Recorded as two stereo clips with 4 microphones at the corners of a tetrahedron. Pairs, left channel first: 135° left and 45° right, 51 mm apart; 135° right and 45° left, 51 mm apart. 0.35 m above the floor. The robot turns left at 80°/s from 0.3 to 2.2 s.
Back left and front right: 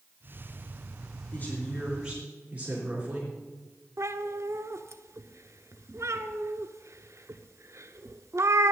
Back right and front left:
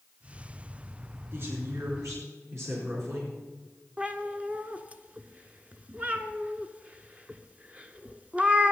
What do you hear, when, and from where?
1.3 s a woman speaking: 85° left, 4 m; by 3.3 s 15° left, 4 m
4.0 s a cat meowing: 20° right, 0.7 m